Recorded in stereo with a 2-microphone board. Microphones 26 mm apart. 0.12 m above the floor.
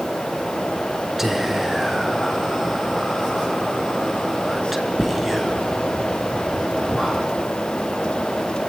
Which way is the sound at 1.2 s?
10° right (ahead or behind).